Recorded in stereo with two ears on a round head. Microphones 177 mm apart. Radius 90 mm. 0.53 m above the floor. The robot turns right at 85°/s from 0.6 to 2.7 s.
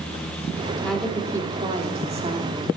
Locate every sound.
0.8 s a woman speaking: 165° left, 1.2 m; by 2.7 s 35° right, 1.2 m